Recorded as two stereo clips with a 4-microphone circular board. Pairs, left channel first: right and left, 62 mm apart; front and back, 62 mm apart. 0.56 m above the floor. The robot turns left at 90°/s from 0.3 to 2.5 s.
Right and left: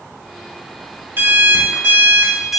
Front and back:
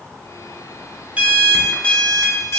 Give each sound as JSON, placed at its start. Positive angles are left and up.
{"t": 1.2, "sound": "an alarm clock", "azimuth_deg": 125, "distance_m": 0.5}